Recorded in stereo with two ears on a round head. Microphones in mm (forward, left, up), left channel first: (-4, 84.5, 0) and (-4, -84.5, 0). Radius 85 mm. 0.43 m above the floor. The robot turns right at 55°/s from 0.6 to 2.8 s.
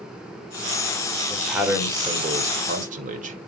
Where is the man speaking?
175° left, 1.5 m; by 3.4 s 105° right, 1.5 m.